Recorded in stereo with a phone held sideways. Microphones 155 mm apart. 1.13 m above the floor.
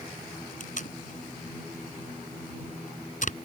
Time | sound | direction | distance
0.6 | tape being pulled | 55° left (ahead or behind) | ?